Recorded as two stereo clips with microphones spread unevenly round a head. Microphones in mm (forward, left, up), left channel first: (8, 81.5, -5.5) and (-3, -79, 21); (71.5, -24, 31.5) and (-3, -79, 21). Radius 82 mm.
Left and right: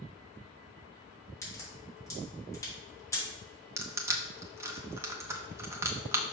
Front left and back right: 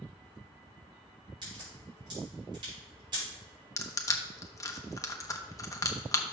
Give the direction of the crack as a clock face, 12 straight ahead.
7 o'clock.